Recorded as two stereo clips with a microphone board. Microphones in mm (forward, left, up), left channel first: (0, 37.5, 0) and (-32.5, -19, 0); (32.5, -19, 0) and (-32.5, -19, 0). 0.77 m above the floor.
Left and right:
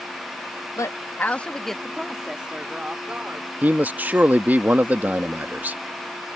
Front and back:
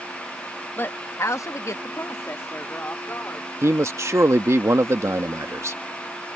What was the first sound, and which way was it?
A woman speaking, 50° left.